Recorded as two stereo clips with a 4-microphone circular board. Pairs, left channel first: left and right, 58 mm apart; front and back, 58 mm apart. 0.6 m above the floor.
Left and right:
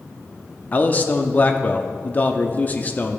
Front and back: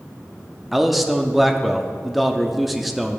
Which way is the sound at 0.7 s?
95° left.